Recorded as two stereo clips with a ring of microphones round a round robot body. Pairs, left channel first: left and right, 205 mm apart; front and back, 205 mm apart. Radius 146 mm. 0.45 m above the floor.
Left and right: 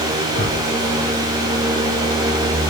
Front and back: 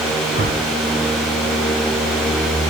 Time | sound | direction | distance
0.3 | a whoosh | 145° left | 2.0 m